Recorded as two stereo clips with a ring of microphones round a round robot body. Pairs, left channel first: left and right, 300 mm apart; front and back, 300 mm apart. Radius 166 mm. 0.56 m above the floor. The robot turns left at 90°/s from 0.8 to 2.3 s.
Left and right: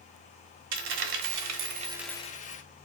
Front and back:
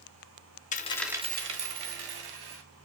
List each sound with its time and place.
0.7 s a dropped coin: 65° right, 0.7 m; by 2.6 s 160° left, 0.7 m